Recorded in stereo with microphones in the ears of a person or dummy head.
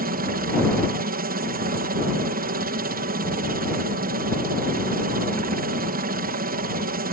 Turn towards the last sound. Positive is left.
turn(degrees=-45)  # may be behind; listen again after turning